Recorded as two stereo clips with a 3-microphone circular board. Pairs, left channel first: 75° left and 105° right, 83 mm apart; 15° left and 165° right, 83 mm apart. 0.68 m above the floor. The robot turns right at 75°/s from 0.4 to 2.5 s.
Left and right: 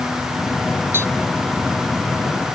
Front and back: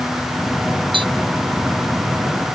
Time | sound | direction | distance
0.9 | tapping | 165° right | ?